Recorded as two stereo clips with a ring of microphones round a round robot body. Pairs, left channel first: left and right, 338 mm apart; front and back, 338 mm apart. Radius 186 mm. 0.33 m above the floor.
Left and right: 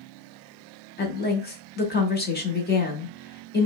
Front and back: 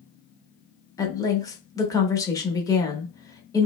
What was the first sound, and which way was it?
A woman speaking, 70° left.